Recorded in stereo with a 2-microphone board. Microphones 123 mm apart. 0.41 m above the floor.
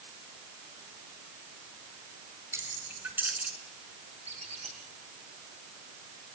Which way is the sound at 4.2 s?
60° right (ahead or behind).